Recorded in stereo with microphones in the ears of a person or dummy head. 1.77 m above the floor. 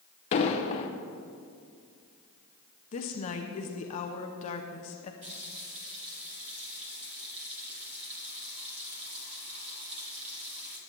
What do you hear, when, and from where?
0.3 s an explosion: 30° left (ahead or behind), 0.8 m
2.9 s a woman speaking: 30° left (ahead or behind), 0.8 m
5.2 s a running tap: 35° right (ahead or behind), 2.5 m